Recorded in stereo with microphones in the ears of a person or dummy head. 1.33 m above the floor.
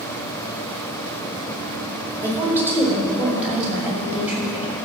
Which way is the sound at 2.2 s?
10° right (ahead or behind).